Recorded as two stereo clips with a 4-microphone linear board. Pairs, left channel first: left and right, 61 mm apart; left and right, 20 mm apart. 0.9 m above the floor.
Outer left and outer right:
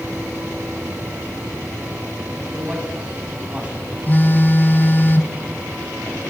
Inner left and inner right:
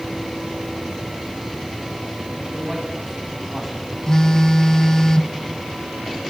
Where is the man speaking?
20° right (ahead or behind), 8.5 m.